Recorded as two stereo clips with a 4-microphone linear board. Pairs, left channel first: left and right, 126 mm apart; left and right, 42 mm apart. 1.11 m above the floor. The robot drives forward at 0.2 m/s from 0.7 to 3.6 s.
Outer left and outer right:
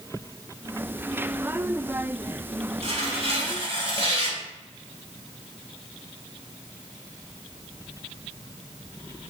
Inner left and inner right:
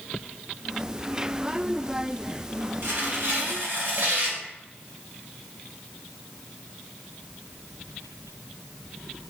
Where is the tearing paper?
50° right (ahead or behind), 2.5 m.